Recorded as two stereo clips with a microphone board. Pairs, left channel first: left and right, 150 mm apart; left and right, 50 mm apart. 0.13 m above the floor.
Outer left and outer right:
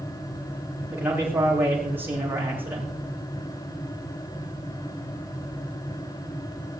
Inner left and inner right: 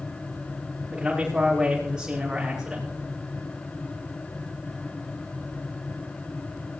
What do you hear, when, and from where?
0.9 s a man speaking: 15° right (ahead or behind), 9.5 m